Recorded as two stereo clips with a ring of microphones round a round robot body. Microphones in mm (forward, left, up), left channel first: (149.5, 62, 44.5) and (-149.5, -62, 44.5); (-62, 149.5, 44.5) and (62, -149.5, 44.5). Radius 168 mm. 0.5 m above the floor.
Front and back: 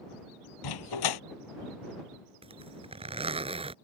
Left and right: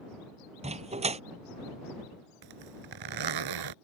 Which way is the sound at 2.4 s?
85° right.